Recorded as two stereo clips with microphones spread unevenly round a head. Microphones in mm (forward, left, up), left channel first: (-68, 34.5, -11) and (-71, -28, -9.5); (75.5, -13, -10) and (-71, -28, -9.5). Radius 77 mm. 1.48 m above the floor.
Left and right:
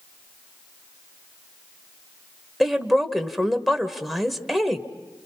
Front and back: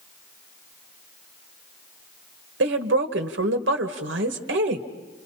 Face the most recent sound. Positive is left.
turn(degrees=175)